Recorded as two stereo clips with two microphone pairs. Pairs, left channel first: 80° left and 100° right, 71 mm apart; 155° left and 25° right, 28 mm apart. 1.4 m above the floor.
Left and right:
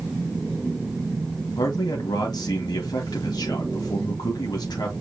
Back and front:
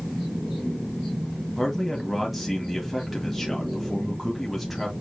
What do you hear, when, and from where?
1.6 s a man speaking: 65° left, 1.6 m